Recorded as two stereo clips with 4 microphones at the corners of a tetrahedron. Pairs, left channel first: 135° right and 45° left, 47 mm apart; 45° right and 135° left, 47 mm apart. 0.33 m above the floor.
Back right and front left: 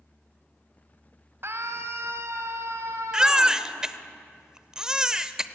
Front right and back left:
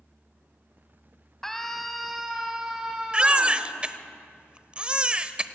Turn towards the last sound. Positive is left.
turn(degrees=105)